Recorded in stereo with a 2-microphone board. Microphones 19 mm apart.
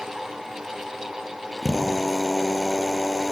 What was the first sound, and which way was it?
A drill, 5° left (ahead or behind).